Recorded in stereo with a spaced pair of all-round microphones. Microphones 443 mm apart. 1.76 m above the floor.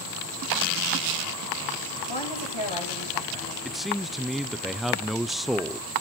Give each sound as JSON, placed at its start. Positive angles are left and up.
{"t": 2.1, "sound": "a woman speaking", "side_deg": 85, "distance_m": 10.0}
{"t": 3.6, "sound": "a man speaking", "side_deg": 0, "distance_m": 0.8}